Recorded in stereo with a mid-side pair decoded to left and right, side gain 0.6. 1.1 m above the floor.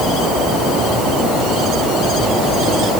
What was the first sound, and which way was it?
Only background noise.